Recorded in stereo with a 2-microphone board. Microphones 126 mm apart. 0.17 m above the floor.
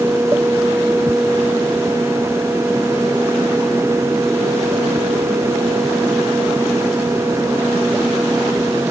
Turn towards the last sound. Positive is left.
No sound to turn to.